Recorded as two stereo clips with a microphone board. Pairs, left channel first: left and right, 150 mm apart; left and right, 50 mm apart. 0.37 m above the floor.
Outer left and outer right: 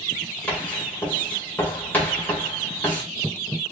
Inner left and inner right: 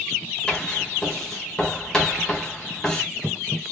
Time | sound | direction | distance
0.5 | writing | 10° left (ahead or behind) | 1.6 m